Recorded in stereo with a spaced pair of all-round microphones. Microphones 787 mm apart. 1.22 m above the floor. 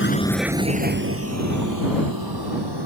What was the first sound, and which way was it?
A vehicle, 15° left (ahead or behind).